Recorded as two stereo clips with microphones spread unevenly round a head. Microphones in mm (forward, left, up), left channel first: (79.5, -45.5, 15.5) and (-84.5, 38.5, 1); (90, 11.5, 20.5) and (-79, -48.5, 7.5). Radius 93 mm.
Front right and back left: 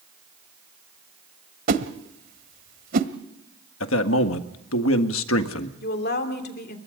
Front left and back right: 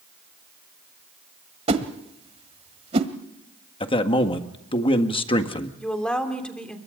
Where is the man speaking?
40° right, 1.7 m.